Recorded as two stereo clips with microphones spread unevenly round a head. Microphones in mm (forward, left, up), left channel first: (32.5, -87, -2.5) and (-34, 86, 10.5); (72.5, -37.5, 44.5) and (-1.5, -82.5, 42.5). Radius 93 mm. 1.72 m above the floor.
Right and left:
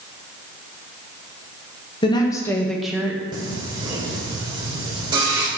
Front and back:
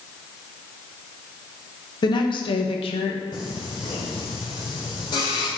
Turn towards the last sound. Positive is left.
turn(degrees=55)